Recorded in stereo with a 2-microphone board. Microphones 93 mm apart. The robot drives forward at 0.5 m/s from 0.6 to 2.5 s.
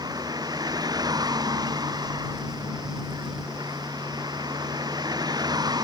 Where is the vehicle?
45° right (ahead or behind).